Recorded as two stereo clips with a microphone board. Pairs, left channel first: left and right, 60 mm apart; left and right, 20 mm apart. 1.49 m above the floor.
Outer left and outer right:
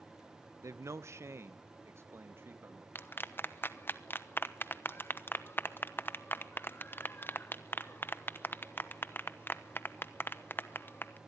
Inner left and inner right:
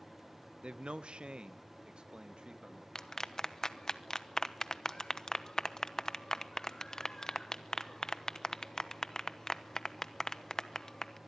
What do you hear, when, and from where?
0.6 s a man speaking: 55° right (ahead or behind), 0.8 m; by 2.9 s 45° right (ahead or behind), 2 m
3.0 s a clap: 35° left (ahead or behind), 1.0 m